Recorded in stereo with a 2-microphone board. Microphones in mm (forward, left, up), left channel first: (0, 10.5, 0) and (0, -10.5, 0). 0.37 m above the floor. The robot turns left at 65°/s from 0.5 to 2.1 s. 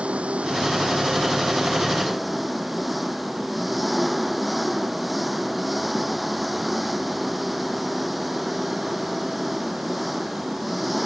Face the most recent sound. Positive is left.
turn(degrees=180)